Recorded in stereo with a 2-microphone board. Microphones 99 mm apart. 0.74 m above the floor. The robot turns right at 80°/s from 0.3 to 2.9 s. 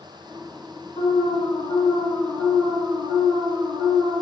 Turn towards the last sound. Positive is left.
turn(degrees=-130)